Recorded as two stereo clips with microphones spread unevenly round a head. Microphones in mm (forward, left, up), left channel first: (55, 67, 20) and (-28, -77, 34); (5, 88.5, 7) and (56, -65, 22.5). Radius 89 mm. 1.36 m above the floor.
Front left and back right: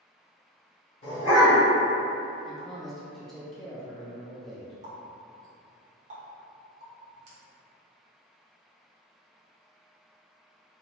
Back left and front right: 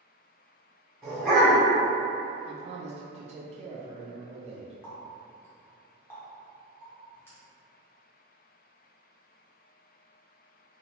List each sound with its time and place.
1.0 s a dog barking: 10° left, 1.4 m
2.5 s a man speaking: 25° right, 0.5 m
4.8 s a running tap: 170° right, 0.6 m